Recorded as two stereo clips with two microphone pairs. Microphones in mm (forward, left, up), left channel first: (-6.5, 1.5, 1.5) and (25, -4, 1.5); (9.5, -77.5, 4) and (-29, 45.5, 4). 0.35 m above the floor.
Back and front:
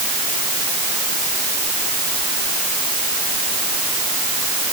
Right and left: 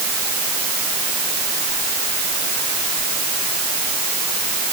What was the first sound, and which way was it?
Only background noise.